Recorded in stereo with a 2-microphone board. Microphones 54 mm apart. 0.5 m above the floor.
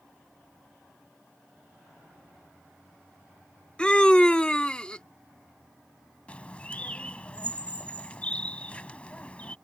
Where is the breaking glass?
No breaking glass in this recording.